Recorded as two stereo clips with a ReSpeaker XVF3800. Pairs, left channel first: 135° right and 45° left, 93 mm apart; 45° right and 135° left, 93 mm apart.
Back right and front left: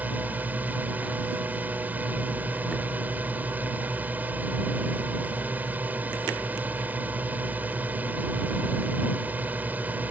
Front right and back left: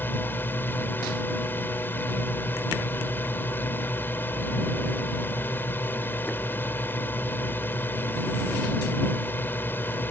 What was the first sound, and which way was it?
A drone, 5° right.